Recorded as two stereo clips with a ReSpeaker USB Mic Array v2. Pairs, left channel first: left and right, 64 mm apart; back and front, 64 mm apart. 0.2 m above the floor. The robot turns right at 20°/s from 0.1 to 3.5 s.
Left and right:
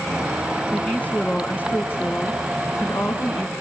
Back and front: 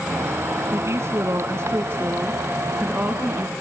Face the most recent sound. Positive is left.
turn(degrees=80)